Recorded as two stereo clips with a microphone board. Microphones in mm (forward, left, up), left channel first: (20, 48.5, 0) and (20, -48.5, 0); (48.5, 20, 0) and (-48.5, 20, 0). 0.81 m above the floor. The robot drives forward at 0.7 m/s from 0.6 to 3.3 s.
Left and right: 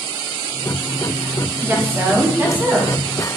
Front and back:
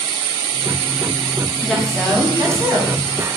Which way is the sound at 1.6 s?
80° right.